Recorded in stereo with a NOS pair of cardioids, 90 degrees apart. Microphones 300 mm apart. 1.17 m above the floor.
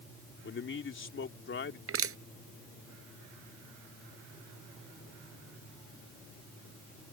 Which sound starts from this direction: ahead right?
Crushing, at 1.9 s.